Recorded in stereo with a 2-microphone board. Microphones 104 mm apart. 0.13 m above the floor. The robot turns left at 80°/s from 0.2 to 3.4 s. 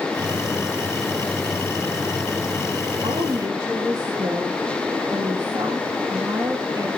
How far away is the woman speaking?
About 4 m.